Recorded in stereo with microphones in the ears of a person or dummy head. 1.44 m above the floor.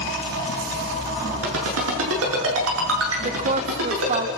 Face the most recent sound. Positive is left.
turn(degrees=-45)  # may be behind; listen again after turning